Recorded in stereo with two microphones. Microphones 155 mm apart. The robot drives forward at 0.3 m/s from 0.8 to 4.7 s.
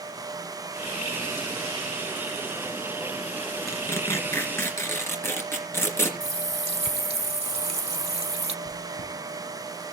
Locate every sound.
3.7 s tearing paper: 20° left (ahead or behind), 2.5 m; by 6.1 s 15° left (ahead or behind), 2.5 m
6.2 s a running tap: 45° right (ahead or behind), 0.9 m
8.7 s chewing: 90° left, 9.5 m